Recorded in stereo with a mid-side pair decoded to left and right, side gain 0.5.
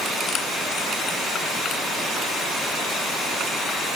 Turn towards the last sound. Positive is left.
No sound to turn to.